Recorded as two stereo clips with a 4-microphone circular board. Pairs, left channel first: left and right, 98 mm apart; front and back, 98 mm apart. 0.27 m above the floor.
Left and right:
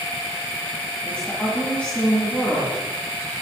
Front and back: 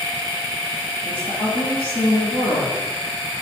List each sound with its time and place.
1.1 s a woman speaking: 20° left, 2.5 m